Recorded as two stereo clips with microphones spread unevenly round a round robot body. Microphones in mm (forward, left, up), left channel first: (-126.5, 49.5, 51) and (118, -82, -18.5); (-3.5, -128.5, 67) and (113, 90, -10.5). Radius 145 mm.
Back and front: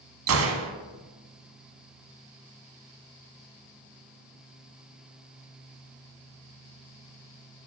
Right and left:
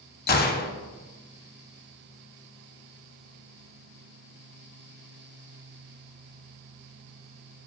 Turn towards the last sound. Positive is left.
turn(degrees=-65)